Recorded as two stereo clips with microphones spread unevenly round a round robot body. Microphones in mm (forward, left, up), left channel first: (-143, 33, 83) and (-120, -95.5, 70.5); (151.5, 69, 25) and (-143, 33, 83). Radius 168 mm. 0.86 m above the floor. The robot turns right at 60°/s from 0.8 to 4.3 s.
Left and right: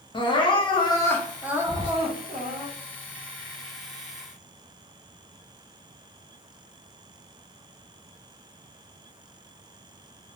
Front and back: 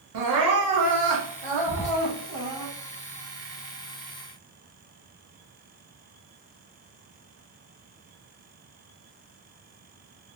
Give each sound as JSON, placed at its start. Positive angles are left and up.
{"t": 0.1, "sound": "crying", "azimuth_deg": 160, "distance_m": 0.8}
{"t": 1.7, "sound": "whispering", "azimuth_deg": 15, "distance_m": 1.2}